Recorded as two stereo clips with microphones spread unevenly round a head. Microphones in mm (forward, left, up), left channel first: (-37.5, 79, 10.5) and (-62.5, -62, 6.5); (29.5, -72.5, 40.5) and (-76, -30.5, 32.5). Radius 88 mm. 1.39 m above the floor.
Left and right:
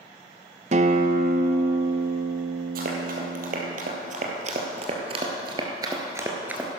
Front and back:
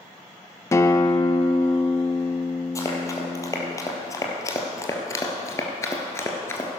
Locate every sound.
0.7 s a guitar: 70° right, 0.6 m
2.8 s running footsteps: 75° right, 2.5 m; by 6.7 s 20° right, 1.4 m